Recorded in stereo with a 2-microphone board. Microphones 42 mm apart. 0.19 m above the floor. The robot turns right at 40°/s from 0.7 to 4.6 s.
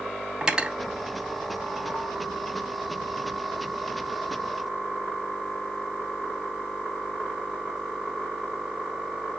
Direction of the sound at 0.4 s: 20° right (ahead or behind).